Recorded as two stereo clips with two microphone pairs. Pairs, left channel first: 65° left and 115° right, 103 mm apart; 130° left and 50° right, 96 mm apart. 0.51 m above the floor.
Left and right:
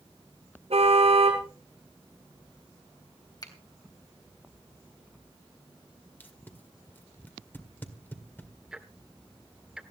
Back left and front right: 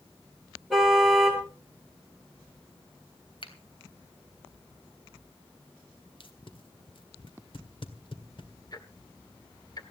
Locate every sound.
0.7 s a car horn: 135° right, 5 m
3.4 s a finger snap: 115° left, 3 m
6.2 s tape being pulled: 130° left, 1.9 m
8.7 s ticking: 160° left, 1.8 m